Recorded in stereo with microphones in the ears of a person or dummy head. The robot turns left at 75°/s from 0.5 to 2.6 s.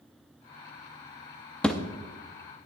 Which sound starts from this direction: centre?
A thud, at 1.6 s.